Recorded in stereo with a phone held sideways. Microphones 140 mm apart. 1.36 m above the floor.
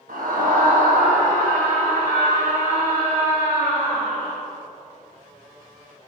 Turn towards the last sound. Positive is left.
turn(degrees=-40)  # may be behind; listen again after turning